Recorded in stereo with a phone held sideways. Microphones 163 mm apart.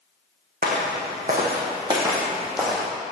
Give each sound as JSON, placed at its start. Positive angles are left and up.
{"t": 0.6, "sound": "footsteps", "side_deg": -65, "distance_m": 1.9}